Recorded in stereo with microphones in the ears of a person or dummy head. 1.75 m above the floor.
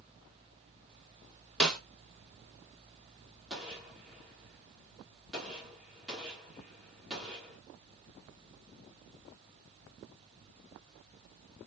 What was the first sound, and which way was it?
A snare drum, 5° left (ahead or behind).